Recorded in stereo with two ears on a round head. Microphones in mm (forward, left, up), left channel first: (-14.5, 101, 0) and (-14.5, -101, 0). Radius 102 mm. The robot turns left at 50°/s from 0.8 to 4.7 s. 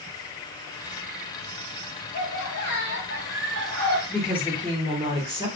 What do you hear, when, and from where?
2.1 s laughter: 105° left, 1.3 m; by 4.0 s 10° left, 1.3 m
4.1 s a woman speaking: 5° left, 1.0 m; by 5.5 s 25° right, 1.0 m